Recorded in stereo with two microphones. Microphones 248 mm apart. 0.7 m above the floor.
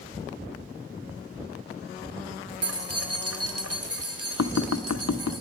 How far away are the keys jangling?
About 1.3 m.